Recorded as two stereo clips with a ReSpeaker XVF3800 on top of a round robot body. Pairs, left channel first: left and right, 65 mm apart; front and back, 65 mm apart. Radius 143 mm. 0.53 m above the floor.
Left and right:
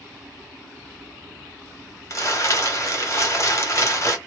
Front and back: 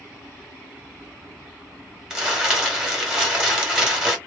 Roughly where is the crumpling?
Left.